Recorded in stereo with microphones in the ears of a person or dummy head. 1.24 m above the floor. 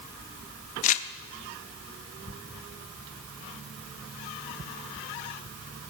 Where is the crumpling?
40° left (ahead or behind), 0.7 m.